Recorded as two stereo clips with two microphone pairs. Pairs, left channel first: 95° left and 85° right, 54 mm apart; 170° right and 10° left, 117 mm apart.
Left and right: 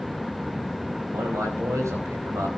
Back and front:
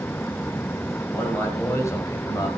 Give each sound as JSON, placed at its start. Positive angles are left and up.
{"t": 1.1, "sound": "a man speaking", "azimuth_deg": -95, "distance_m": 4.5}